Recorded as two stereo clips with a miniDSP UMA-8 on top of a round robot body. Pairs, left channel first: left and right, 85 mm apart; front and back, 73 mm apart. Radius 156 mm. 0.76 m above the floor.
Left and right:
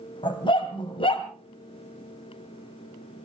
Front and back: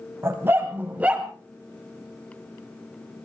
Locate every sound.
0.2 s a dog barking: 120° left, 2.5 m; by 1.3 s 100° left, 2 m